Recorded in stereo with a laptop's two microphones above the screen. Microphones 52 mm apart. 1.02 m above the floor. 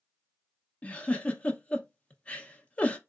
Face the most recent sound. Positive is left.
turn(degrees=20)  # may be behind; listen again after turning